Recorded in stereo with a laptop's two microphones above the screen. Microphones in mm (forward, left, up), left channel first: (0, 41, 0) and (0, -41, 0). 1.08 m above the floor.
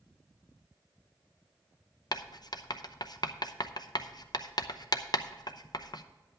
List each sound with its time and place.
2.1 s writing: 55° left (ahead or behind), 0.6 m